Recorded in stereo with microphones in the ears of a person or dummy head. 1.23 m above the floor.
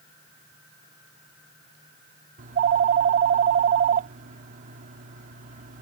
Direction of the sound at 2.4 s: 50° right (ahead or behind).